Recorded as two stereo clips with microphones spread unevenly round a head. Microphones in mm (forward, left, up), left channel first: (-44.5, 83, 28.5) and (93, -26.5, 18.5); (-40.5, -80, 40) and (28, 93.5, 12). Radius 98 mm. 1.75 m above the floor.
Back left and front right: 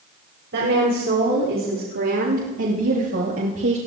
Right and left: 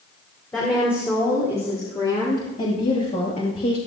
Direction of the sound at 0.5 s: 30° right.